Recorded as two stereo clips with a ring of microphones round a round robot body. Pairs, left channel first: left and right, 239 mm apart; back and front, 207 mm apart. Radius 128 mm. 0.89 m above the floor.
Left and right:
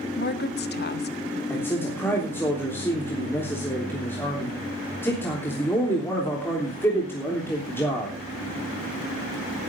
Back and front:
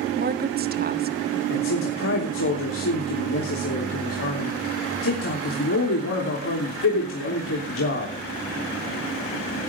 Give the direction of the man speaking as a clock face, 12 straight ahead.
6 o'clock.